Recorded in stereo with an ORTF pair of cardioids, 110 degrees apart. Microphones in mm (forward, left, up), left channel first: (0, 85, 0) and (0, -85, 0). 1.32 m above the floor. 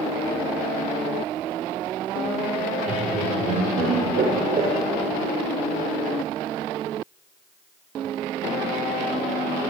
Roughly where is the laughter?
Ahead right.